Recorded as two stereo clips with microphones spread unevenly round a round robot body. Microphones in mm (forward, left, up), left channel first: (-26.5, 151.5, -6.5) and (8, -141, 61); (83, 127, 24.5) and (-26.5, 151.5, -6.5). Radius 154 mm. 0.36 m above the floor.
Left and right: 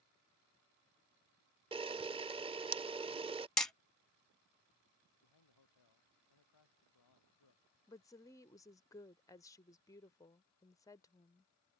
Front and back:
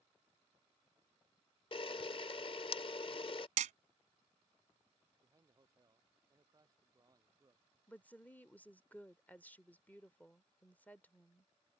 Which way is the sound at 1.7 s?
5° right.